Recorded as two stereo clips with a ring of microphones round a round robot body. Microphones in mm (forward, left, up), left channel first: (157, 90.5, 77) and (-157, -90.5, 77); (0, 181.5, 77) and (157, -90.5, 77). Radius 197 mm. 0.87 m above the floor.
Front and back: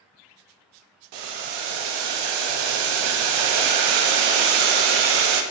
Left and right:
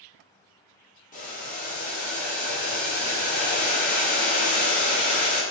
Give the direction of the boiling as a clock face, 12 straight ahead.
6 o'clock.